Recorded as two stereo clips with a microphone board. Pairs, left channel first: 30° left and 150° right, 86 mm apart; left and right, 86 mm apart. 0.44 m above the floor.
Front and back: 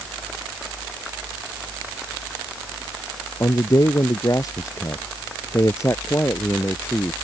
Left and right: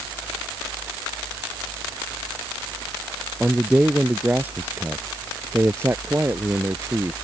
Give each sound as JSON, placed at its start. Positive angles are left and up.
{"t": 3.4, "sound": "a man speaking", "azimuth_deg": -15}